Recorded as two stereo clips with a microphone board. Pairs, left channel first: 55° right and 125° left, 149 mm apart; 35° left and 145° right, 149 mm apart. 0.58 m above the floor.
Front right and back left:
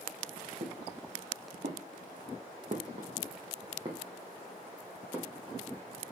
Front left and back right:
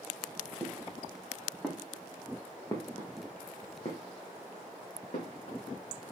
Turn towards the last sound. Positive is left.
turn(degrees=45)